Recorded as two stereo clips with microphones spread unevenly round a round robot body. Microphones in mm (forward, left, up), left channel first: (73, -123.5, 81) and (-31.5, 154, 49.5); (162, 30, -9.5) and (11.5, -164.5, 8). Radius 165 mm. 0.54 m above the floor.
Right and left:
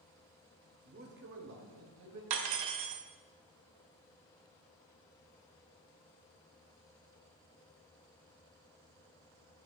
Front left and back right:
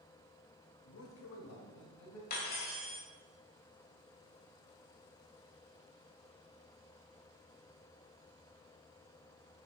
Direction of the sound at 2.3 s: 115° left.